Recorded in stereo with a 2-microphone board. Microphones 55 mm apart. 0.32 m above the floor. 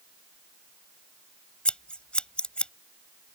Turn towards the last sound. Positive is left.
turn(degrees=20)  # may be behind; listen again after turning